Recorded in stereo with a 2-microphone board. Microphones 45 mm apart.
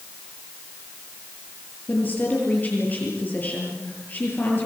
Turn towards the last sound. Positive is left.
turn(degrees=40)  # may be behind; listen again after turning